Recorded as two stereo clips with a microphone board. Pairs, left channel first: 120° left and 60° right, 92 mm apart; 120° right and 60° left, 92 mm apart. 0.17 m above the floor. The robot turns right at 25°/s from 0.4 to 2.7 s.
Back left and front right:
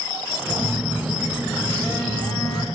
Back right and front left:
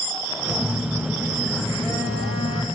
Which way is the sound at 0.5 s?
155° right.